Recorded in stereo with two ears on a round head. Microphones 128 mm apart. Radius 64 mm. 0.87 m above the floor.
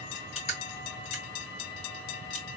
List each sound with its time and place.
0.1 s crushing: 45° left (ahead or behind), 2.0 m